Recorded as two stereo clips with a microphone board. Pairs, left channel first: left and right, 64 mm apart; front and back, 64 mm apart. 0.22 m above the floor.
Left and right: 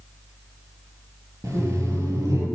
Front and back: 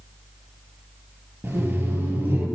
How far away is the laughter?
About 5 m.